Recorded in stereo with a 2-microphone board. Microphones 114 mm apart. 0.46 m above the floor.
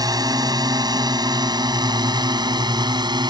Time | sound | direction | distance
0.0 | a drone | 35° right (ahead or behind) | ?